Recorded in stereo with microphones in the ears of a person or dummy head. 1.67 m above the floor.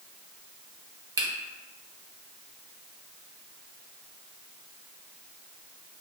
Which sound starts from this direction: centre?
A finger snap, at 1.2 s.